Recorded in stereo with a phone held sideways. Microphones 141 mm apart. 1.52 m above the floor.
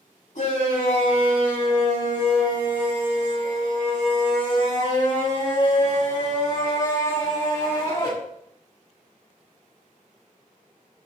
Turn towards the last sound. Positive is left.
turn(degrees=35)  # may be behind; listen again after turning